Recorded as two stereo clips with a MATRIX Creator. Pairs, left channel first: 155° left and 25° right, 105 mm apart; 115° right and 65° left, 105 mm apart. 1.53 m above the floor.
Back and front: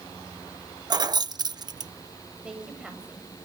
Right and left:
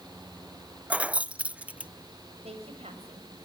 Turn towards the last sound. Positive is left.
turn(degrees=60)